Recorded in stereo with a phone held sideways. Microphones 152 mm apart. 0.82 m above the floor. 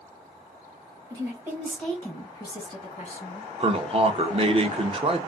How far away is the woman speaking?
About 1.0 m.